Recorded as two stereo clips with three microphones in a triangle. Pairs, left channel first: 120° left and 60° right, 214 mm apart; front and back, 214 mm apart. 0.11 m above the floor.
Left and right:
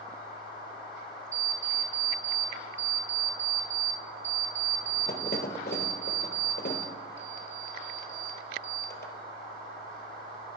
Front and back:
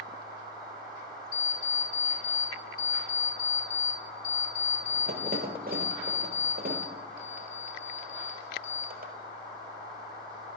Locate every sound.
1.3 s an alarm clock: 145° left, 1.6 m